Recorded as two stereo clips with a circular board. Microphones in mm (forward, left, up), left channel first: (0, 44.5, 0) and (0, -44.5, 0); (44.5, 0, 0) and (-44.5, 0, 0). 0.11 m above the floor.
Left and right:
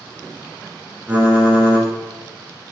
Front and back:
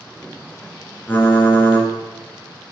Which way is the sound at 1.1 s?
40° right.